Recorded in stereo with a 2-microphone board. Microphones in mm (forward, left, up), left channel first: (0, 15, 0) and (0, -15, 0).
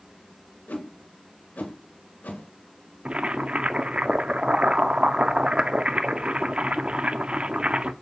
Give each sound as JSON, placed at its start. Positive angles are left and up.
{"t": 0.7, "sound": "a whoosh", "side_deg": 80, "distance_m": 1.7}
{"t": 3.0, "sound": "boiling", "side_deg": -40, "distance_m": 0.5}